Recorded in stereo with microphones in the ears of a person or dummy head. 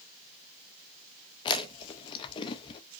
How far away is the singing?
I don't hear singing.